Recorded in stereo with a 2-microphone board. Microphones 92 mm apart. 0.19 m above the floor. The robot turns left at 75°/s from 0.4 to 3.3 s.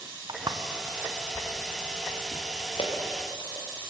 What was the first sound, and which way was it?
Footsteps, 50° right (ahead or behind).